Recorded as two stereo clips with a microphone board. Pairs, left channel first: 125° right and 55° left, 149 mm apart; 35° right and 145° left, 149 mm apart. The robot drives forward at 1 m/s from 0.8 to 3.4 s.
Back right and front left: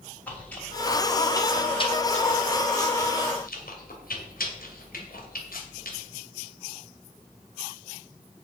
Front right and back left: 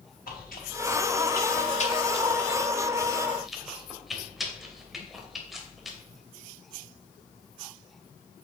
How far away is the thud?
No thud in this recording.